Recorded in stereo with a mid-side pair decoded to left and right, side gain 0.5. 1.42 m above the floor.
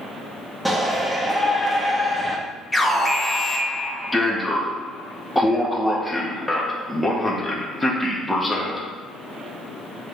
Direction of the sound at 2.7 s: 15° left.